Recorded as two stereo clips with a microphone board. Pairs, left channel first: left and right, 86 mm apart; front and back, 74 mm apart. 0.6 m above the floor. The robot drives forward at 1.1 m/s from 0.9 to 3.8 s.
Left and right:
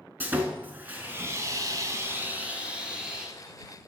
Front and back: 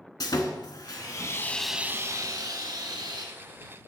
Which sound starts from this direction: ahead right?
Sawing, at 0.2 s.